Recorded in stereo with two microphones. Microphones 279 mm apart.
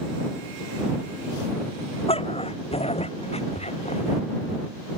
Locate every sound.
2.1 s a dog barking: 20° left (ahead or behind)